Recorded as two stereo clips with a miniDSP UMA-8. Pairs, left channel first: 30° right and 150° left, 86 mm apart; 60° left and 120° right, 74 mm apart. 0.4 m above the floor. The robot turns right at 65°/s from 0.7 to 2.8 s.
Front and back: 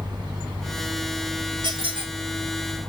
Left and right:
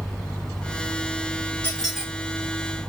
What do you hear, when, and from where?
1.6 s a squeak: 130° left, 1.2 m; by 2.1 s 160° left, 1.2 m